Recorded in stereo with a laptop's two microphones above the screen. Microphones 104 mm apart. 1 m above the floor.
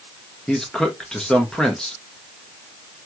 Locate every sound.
0.5 s a man speaking: 5° left (ahead or behind), 1.0 m